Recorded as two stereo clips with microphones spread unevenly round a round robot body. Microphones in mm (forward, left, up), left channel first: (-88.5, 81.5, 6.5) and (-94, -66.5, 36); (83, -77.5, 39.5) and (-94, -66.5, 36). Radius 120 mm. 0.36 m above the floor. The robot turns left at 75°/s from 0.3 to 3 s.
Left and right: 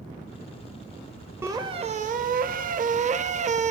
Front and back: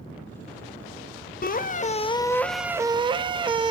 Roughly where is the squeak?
Ahead.